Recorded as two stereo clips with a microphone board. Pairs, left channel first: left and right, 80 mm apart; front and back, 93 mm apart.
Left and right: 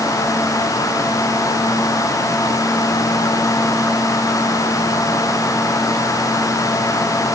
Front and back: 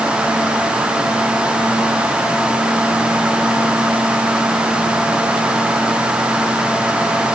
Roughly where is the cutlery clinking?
I don't hear cutlery clinking.